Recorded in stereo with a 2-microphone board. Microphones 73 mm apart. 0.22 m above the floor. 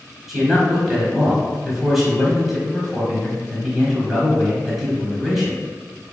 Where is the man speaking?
Centre (ahead or behind), 1.1 m.